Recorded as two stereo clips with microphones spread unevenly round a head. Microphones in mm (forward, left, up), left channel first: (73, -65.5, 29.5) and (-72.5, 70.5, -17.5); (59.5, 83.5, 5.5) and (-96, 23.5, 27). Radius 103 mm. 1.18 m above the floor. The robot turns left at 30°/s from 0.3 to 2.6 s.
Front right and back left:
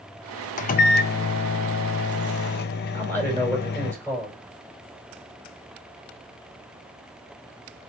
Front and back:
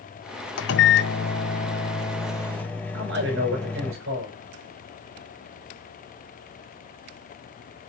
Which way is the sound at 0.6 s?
5° right.